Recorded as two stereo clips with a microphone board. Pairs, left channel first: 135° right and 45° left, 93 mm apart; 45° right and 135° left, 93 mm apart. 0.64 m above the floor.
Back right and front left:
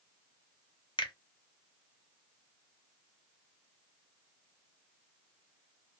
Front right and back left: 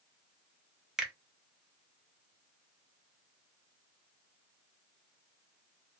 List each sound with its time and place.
1.0 s a finger snap: 140° right, 0.7 m